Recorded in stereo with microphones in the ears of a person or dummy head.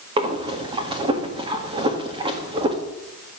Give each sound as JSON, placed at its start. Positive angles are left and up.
{"t": 0.2, "sound": "breathing", "side_deg": -35, "distance_m": 1.8}